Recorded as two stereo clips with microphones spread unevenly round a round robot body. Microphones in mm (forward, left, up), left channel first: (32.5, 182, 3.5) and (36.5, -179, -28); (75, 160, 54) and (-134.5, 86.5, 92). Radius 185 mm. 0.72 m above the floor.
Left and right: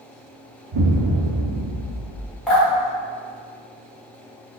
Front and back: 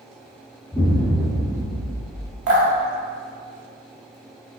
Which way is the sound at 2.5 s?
Straight behind.